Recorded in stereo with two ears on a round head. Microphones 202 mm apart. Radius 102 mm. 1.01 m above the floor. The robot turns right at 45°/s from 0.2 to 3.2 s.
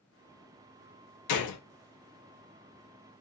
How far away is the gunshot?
About 0.6 m.